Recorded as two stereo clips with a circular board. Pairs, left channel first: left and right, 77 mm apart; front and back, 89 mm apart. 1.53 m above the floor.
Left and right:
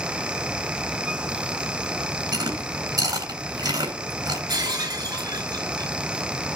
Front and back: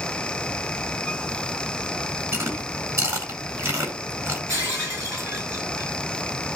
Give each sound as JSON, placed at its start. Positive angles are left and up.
{"t": 2.3, "sound": "chewing", "azimuth_deg": -125, "distance_m": 9.5}
{"t": 4.5, "sound": "breaking glass", "azimuth_deg": -125, "distance_m": 6.5}